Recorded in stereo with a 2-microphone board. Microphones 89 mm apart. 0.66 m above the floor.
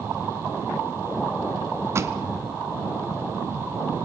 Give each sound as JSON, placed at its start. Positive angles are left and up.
{"t": 1.9, "sound": "a pop", "side_deg": -30, "distance_m": 1.1}